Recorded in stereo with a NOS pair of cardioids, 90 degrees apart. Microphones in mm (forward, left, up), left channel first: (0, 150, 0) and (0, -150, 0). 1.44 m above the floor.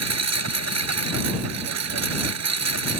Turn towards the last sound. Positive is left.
turn(degrees=-60)